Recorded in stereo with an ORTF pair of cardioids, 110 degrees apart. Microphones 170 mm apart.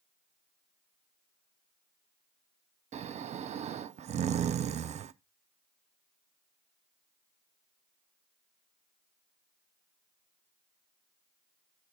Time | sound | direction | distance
2.9 | snoring | 40° right | 0.6 m